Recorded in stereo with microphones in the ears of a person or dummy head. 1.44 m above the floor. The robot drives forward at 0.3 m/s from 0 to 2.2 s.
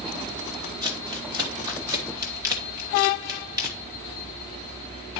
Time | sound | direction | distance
0.8 | crumpling | 25° right (ahead or behind) | 1.1 m